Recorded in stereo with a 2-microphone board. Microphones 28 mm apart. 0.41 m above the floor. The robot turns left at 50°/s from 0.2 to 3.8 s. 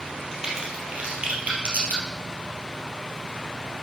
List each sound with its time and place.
0.3 s a crack: 20° right (ahead or behind), 3 m; by 2.0 s 75° right (ahead or behind), 3 m